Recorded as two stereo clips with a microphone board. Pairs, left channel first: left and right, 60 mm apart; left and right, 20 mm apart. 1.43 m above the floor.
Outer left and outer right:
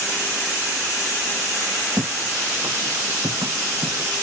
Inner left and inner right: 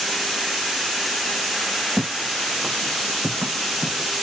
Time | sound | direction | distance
2.0 | footsteps | 80° right | ?